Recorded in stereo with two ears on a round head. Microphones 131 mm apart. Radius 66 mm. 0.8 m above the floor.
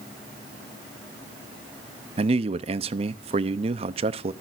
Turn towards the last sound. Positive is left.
turn(degrees=-40)  # may be behind; listen again after turning